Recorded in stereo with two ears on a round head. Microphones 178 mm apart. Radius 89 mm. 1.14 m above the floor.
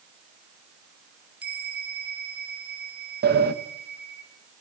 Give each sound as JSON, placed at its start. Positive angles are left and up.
{"t": 1.4, "sound": "a bell", "side_deg": -10, "distance_m": 3.0}
{"t": 3.2, "sound": "a sliding door", "side_deg": -45, "distance_m": 1.6}